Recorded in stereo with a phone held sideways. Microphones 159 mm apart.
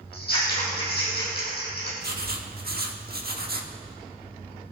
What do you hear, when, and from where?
0.1 s scissors: 80° left, 6 m
2.0 s writing: 75° right (ahead or behind), 1.4 m